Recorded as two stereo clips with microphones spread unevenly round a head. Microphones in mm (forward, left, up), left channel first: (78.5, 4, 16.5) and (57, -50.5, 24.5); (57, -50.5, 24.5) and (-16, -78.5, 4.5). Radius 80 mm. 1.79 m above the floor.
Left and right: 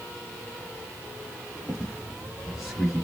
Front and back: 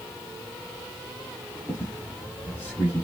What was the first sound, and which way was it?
A squeak, 35° right.